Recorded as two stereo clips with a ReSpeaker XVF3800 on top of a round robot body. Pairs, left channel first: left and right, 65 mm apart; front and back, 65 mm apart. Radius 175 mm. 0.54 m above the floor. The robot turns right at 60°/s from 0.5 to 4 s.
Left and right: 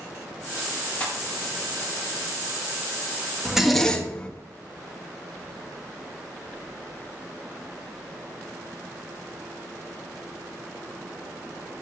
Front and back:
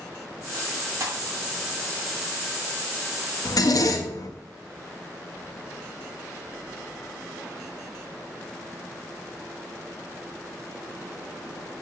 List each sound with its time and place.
1.0 s a pop: 150° left, 2.0 m; by 1.2 s 165° left, 2.0 m
3.5 s a zipper: 15° right, 1.0 m; by 4.3 s 20° left, 1.0 m